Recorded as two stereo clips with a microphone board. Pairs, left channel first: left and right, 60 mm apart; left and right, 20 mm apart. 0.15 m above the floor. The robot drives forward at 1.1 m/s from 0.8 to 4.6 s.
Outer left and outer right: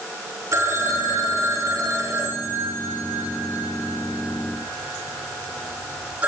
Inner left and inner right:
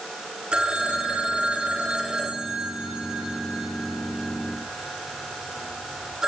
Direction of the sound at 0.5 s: 60° right (ahead or behind).